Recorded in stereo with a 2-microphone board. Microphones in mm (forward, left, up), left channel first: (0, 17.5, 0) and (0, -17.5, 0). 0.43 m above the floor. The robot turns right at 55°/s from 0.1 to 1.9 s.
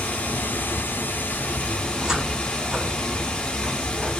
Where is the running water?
50° left, 0.8 m; by 4.2 s 150° left, 0.8 m.